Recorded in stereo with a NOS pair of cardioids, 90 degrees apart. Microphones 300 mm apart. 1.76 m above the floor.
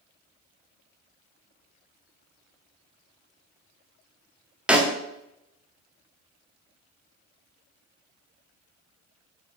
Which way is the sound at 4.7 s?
5° right.